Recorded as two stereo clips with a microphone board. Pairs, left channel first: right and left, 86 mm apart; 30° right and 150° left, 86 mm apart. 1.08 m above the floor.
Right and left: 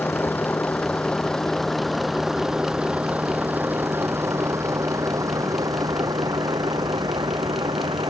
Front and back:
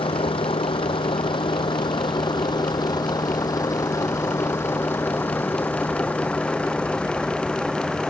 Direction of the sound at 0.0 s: 20° right.